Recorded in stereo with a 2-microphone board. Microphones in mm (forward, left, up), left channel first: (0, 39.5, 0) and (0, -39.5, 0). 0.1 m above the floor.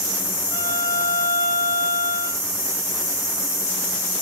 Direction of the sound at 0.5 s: 60° left (ahead or behind).